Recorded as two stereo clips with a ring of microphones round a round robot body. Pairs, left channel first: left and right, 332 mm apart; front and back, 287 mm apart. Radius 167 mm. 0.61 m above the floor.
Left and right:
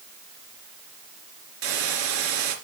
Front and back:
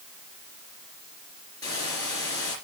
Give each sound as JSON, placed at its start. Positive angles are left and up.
{"t": 1.6, "sound": "a hiss", "azimuth_deg": -80, "distance_m": 3.0}